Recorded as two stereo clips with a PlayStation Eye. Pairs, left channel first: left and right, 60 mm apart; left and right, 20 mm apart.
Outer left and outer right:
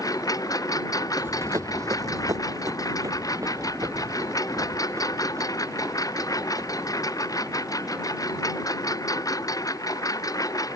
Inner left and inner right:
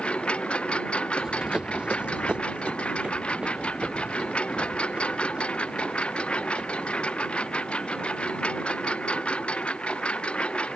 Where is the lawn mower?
75° left (ahead or behind); by 10.8 s 70° left (ahead or behind).